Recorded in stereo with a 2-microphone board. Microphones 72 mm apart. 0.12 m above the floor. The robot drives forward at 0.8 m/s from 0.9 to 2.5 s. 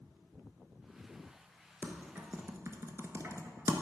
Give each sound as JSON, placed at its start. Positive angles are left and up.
{"t": 1.8, "sound": "typing on a keyboard", "side_deg": -30, "distance_m": 0.8}